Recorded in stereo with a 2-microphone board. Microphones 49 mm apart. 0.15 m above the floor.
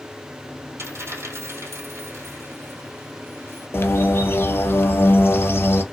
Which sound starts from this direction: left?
A bird, at 3.7 s.